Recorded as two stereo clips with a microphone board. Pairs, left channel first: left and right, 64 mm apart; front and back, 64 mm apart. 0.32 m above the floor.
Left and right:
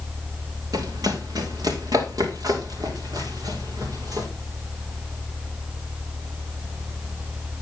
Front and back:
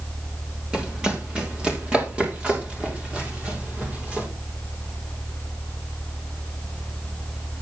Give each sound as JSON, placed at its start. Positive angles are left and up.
{"t": 0.7, "sound": "running footsteps", "azimuth_deg": -105, "distance_m": 3.5}